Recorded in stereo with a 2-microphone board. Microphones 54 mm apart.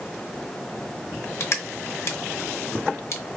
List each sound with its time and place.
1.4 s crushing: 50° left (ahead or behind), 0.8 m